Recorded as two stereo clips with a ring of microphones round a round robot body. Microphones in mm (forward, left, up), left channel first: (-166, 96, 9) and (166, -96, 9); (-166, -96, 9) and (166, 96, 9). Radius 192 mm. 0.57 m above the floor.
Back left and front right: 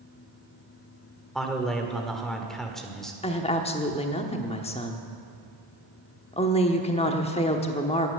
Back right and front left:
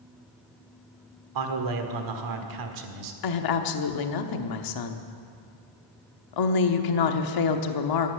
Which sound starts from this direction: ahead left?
A man speaking, at 1.4 s.